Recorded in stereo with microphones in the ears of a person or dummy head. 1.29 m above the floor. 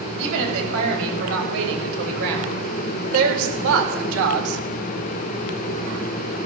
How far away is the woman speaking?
About 6 m.